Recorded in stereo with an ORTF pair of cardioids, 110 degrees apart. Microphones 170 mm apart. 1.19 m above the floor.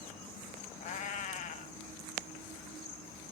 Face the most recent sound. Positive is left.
turn(degrees=50)